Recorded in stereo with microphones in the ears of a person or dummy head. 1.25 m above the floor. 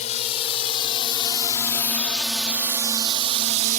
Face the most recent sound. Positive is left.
turn(degrees=-50)  # may be behind; listen again after turning